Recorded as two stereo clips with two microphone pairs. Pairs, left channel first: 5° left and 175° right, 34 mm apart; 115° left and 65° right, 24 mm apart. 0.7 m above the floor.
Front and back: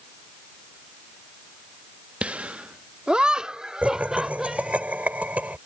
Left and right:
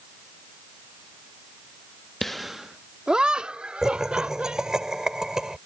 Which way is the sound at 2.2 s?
175° left.